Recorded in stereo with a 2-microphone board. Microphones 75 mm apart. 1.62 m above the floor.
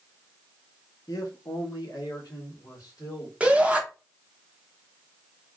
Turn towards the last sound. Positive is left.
turn(degrees=-20)  # may be behind; listen again after turning